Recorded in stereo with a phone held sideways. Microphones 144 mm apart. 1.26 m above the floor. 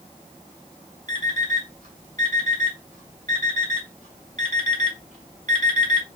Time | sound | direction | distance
1.1 | an alarm clock | 65° right (ahead or behind) | 1.9 m